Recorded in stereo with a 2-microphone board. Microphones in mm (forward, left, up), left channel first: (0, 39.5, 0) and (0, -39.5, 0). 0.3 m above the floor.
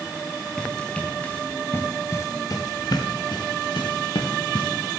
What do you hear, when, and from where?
0.6 s running footsteps: 10° left (ahead or behind), 4.5 m; by 5.0 s 80° left, 4 m